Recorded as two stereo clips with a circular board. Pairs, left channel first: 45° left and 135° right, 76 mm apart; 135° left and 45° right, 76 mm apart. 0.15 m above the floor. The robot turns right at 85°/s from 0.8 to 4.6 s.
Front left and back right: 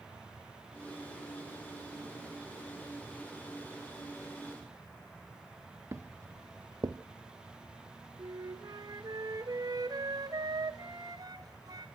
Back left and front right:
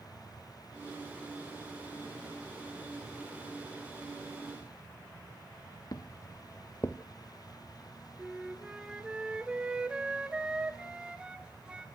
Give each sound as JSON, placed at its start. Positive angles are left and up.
{"t": 5.9, "sound": "footsteps", "azimuth_deg": 170, "distance_m": 1.0}
{"t": 8.2, "sound": "a flute", "azimuth_deg": -120, "distance_m": 1.4}